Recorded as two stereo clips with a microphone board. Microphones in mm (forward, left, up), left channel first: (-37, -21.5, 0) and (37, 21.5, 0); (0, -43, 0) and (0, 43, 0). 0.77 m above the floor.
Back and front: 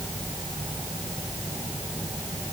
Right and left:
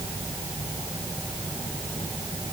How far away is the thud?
No thud in this recording.